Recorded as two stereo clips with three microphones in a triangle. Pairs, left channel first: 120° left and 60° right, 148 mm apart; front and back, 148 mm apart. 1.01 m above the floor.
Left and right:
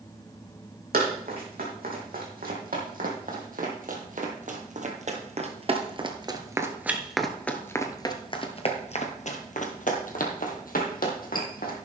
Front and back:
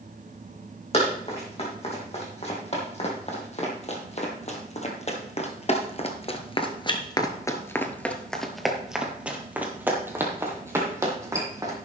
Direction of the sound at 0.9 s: 45° right.